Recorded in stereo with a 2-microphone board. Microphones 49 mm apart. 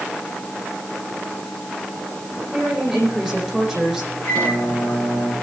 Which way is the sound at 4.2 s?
65° left (ahead or behind).